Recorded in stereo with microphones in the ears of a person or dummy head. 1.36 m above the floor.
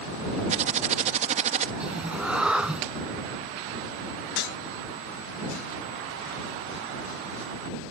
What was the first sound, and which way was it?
Typing on a keyboard, 40° right (ahead or behind).